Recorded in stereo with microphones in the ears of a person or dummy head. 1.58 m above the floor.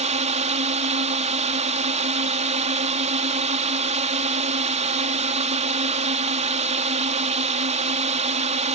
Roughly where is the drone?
Right.